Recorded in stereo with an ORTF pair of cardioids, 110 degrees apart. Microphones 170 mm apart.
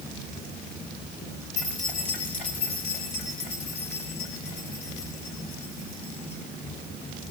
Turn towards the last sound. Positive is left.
turn(degrees=70)